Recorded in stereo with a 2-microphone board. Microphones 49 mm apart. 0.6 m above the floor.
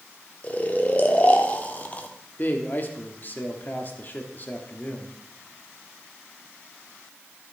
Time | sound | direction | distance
0.4 | snoring | 35° left (ahead or behind) | 1.0 m
2.4 | a man speaking | 40° left (ahead or behind) | 1.2 m